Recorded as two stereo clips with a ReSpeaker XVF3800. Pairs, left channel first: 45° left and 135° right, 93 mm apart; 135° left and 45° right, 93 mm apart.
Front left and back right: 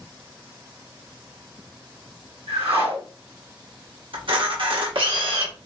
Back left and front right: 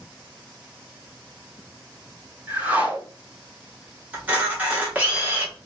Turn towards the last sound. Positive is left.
turn(degrees=-115)